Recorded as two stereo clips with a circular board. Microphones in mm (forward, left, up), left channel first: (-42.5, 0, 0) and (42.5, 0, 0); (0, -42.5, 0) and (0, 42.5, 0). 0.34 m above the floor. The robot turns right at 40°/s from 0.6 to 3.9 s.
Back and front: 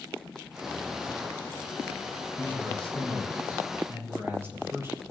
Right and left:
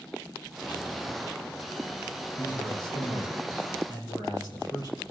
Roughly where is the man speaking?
Behind right.